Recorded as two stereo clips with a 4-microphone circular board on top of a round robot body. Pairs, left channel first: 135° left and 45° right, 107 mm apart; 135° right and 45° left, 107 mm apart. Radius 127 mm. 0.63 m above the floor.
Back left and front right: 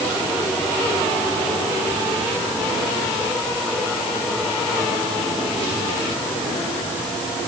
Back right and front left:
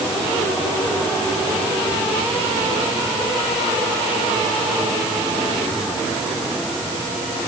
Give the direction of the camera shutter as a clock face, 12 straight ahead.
I don't hear a camera shutter.